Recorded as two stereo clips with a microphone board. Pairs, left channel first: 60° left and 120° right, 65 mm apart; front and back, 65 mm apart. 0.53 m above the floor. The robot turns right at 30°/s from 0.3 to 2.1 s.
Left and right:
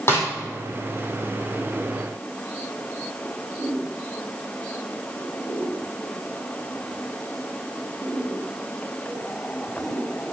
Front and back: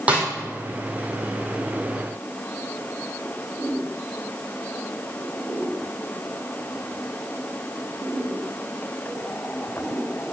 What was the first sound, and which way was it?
A snare drum, 110° left.